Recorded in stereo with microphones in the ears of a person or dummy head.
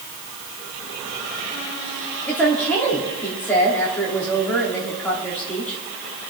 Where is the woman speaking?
5° left (ahead or behind), 3 m.